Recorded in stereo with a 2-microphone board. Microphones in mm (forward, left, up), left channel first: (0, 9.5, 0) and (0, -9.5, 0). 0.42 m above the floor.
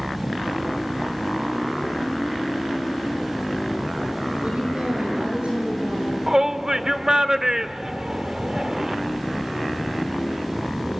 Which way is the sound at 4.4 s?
80° right.